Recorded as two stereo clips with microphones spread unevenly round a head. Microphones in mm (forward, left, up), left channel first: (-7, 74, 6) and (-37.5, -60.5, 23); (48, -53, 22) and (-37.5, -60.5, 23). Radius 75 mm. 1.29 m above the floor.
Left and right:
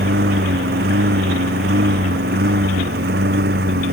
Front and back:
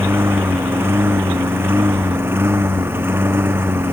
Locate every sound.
0.0 s a lawn mower: 110° right